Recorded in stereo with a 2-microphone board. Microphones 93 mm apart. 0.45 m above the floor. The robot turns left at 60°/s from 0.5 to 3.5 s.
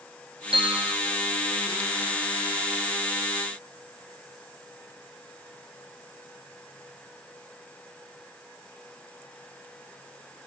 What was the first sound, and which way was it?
A bell, 75° right (ahead or behind).